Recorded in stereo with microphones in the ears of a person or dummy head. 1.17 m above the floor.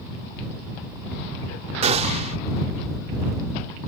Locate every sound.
1.8 s a gunshot: 40° right (ahead or behind)